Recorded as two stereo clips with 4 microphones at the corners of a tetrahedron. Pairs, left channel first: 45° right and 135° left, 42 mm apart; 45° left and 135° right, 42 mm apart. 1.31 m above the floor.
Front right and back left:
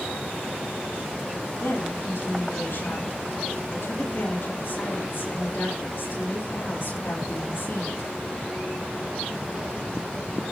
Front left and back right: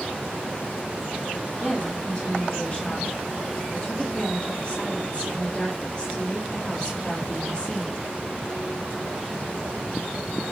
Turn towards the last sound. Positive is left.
turn(degrees=-20)